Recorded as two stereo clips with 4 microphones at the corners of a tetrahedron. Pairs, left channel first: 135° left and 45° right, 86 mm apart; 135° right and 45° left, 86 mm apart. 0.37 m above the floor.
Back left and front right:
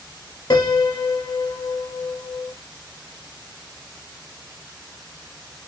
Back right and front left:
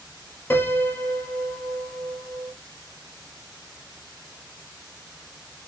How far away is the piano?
About 0.6 m.